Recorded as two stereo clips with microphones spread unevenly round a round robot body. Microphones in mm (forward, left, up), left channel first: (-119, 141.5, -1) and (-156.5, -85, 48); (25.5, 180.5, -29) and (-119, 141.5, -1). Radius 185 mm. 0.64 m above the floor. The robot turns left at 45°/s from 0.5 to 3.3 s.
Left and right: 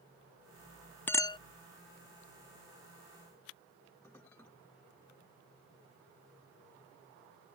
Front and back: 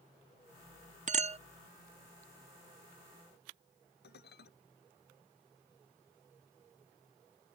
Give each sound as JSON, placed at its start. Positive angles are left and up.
{"t": 1.1, "sound": "a clink", "azimuth_deg": 155}
{"t": 4.0, "sound": "dishes clattering", "azimuth_deg": -5}